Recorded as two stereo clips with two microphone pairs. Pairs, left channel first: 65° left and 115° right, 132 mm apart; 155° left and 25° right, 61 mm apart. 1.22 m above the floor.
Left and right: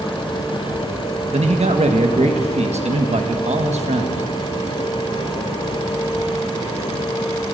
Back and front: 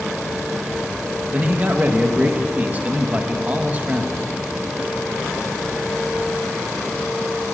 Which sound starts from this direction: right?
A man speaking, at 1.3 s.